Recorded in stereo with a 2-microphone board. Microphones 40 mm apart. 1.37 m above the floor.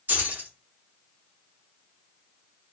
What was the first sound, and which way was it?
Keys jangling, 55° right (ahead or behind).